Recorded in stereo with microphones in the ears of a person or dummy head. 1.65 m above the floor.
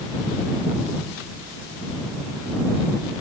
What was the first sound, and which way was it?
Only background noise.